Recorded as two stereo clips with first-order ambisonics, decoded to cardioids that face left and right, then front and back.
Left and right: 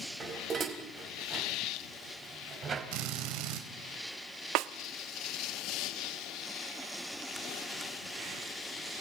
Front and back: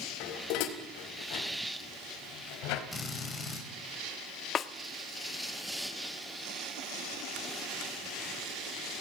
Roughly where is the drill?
Right.